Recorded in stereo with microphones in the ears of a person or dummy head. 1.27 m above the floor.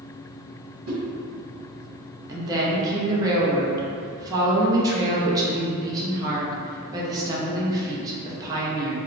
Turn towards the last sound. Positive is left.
turn(degrees=-20)  # may be behind; listen again after turning